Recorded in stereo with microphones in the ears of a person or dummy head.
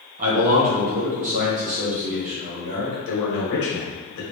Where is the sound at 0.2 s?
35° right (ahead or behind), 0.9 m.